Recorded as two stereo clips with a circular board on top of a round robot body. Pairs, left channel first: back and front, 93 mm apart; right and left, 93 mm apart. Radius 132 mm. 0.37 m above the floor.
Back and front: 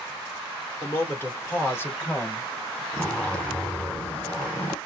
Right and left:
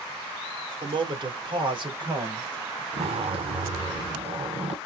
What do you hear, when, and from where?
0.8 s a man speaking: 115° left, 1.8 m; by 2.8 s 120° left, 3.5 m
2.9 s a zipper: 105° left, 2.5 m